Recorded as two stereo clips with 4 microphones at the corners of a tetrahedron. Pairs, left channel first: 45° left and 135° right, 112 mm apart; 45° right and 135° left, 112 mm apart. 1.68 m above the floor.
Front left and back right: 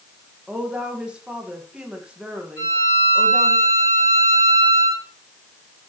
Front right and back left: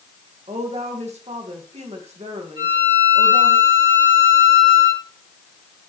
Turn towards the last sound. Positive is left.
turn(degrees=100)